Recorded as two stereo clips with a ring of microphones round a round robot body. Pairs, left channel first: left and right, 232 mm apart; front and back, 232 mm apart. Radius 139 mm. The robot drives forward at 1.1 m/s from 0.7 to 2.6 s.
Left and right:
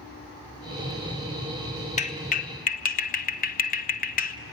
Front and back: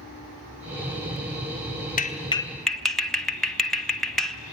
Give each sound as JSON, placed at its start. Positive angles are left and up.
{"t": 2.0, "sound": "a clap", "azimuth_deg": 40, "distance_m": 1.3}